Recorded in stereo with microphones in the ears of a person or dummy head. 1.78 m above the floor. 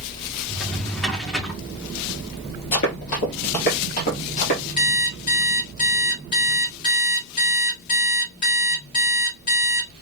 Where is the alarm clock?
40° left (ahead or behind), 2.5 m.